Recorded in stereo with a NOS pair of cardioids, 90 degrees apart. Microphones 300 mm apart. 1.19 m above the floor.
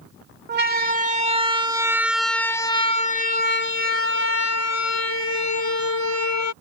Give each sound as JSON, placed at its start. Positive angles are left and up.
{"t": 0.5, "sound": "a siren", "azimuth_deg": -35}